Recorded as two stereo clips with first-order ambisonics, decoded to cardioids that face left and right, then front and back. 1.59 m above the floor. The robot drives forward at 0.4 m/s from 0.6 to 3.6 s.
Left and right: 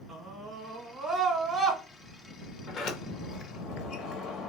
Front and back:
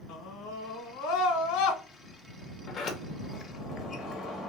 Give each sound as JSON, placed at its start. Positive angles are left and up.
{"t": 0.1, "sound": "a scream", "azimuth_deg": -15, "distance_m": 1.6}
{"t": 2.7, "sound": "a sliding door", "azimuth_deg": 45, "distance_m": 0.9}